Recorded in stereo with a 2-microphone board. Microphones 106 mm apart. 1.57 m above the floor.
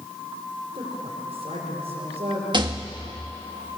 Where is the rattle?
45° right (ahead or behind), 1.7 m.